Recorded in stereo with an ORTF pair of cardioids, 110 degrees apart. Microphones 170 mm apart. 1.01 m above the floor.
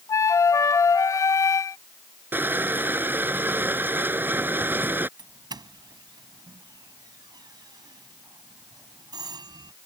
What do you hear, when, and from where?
0.1 s a flute: 20° left
2.3 s crushing: 10° right
5.2 s a doorbell: 25° right